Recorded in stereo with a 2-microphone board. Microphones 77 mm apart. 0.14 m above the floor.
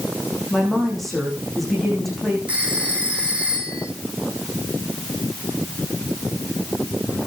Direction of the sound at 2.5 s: 20° right (ahead or behind).